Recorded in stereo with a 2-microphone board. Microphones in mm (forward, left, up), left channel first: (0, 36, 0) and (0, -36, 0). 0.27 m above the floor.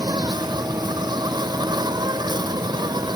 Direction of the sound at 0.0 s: 65° right (ahead or behind).